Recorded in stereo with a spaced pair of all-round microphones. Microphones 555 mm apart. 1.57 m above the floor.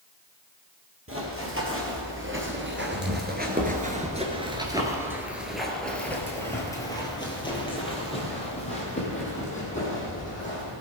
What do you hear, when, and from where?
1.1 s running footsteps: 25° right (ahead or behind), 2.5 m; by 10.7 s 15° left (ahead or behind), 4.5 m